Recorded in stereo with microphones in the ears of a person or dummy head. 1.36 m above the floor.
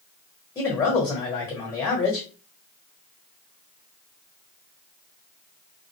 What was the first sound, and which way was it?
A man speaking, 20° left (ahead or behind).